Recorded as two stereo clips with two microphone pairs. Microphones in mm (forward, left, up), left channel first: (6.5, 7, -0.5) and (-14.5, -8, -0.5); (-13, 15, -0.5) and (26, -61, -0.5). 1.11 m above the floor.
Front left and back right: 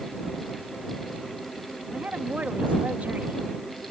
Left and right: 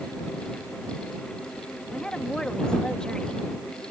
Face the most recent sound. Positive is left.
turn(degrees=-160)